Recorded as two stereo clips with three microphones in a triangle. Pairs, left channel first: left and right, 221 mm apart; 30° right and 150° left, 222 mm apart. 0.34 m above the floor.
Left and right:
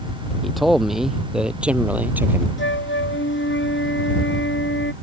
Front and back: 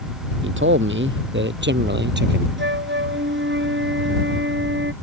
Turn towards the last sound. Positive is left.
turn(degrees=120)